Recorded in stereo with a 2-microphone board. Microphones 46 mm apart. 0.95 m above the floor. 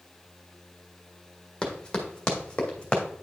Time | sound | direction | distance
1.6 | running footsteps | 15° left (ahead or behind) | 1.6 m